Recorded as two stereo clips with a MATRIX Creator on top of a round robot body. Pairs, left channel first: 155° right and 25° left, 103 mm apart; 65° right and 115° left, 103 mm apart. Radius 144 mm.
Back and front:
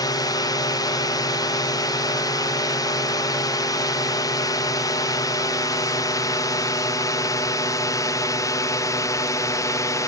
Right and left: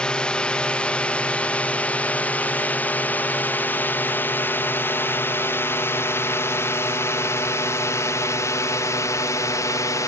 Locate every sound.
0.0 s a drone: 145° right; by 10.1 s 115° right